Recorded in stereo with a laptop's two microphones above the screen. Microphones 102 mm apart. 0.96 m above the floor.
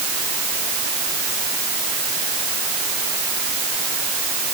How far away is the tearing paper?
No tearing paper in this recording.